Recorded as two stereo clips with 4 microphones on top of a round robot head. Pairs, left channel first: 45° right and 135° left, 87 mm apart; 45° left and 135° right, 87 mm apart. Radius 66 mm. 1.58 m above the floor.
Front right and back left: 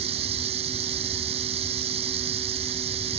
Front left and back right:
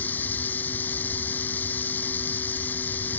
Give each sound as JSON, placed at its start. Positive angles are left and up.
{"t": 0.0, "sound": "running water", "azimuth_deg": 120}